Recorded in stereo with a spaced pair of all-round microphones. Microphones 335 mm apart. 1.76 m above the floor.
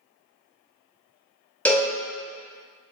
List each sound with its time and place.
1.6 s a cowbell: 5° left (ahead or behind), 0.5 m